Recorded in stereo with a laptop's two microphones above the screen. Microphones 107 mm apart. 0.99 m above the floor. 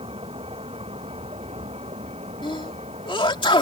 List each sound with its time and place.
0.0 s a vehicle: 60° right (ahead or behind); by 3.6 s 75° right (ahead or behind)
2.4 s a sneeze: 50° left (ahead or behind)